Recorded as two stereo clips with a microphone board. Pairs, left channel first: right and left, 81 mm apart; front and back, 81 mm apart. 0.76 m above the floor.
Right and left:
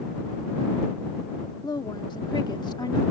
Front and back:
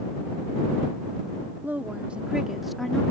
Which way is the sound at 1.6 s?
115° right.